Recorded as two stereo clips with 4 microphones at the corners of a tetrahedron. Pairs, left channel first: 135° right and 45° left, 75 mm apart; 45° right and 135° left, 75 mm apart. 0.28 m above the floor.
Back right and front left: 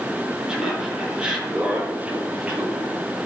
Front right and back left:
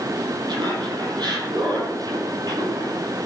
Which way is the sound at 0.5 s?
125° left.